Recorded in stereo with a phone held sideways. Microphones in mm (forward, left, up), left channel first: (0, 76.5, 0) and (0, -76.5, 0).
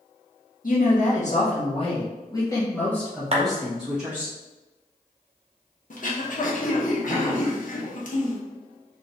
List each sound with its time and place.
0.6 s a woman speaking: 70° left (ahead or behind), 1.4 m; by 4.3 s 10° right (ahead or behind), 1.9 m
3.3 s a clap: 45° right (ahead or behind), 0.7 m
5.9 s throat clearing: 60° left (ahead or behind), 0.7 m